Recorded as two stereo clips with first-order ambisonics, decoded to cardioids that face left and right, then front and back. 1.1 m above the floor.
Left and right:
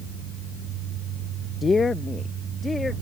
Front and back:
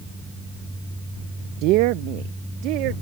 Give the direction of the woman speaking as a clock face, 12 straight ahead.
7 o'clock.